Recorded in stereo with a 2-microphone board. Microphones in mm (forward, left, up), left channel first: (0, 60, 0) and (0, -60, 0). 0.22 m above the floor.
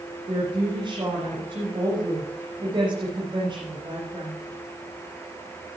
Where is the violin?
I don't hear a violin.